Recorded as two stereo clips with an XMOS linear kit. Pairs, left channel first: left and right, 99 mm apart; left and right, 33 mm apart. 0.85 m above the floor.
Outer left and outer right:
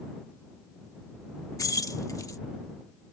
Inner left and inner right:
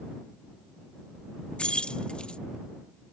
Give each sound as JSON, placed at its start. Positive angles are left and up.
{"t": 1.6, "sound": "keys jangling", "side_deg": 35}